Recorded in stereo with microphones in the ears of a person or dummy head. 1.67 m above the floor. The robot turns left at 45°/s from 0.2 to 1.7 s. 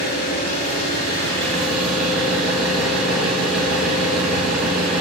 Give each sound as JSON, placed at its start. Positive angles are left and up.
{"t": 0.0, "sound": "an engine running", "azimuth_deg": 65, "distance_m": 1.8}